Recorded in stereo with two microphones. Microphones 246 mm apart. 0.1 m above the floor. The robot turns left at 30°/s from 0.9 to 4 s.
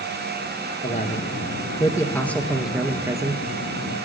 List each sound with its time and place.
0.8 s a man speaking: 50° left, 1.5 m; by 3.4 s 25° right, 1.5 m